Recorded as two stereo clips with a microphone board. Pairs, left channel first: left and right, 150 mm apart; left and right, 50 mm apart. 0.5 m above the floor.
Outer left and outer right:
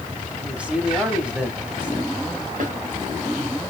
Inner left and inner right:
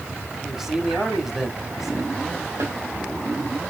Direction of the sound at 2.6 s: 65° right (ahead or behind).